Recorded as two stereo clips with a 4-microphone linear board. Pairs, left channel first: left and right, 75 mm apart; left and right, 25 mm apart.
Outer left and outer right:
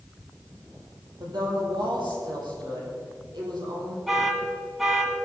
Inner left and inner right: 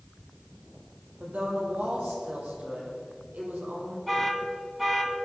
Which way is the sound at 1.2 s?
75° right (ahead or behind).